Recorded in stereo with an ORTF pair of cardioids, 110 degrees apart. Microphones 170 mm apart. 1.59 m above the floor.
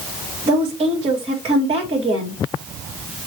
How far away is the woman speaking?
About 2.5 m.